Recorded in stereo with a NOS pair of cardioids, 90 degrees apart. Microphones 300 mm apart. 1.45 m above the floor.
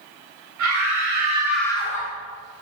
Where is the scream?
65° right, 0.8 m; by 2.1 s 30° left, 0.8 m.